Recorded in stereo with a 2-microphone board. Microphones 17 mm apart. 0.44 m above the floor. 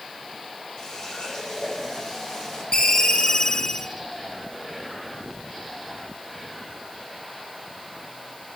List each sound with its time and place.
0.8 s a running tap: 45° left (ahead or behind), 9 m
2.7 s a ringtone: 55° left (ahead or behind), 3 m